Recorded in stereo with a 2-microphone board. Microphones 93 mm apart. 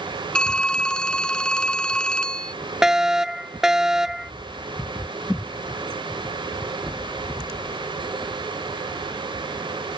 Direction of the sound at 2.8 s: 5° right (ahead or behind).